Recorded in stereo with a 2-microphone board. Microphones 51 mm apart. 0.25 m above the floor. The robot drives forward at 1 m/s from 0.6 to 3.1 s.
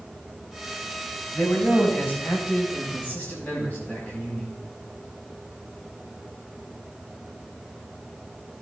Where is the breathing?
No breathing in this recording.